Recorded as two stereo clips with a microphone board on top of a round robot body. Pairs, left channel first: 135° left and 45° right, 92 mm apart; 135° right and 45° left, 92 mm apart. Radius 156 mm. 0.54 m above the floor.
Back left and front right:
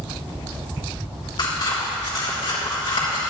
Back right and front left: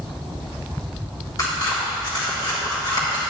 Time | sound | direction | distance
1.4 | scissors | 175° left | 3 m